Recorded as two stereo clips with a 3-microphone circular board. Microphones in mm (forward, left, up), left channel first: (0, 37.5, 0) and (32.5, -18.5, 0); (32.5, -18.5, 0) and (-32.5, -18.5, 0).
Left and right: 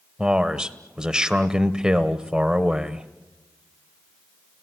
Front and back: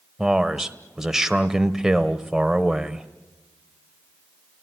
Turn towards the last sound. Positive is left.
turn(degrees=-110)